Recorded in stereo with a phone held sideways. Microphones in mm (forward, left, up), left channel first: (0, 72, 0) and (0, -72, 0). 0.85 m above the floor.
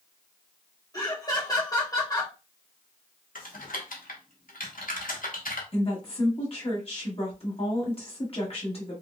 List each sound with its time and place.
0.9 s laughter: 25° left (ahead or behind), 0.8 m
3.4 s typing on a keyboard: 75° left (ahead or behind), 0.7 m
5.7 s a woman speaking: 45° left (ahead or behind), 1.3 m